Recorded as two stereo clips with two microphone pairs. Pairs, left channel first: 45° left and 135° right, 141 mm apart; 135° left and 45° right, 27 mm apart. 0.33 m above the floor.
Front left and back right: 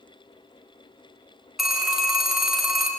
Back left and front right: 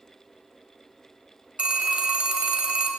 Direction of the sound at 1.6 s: 45° right.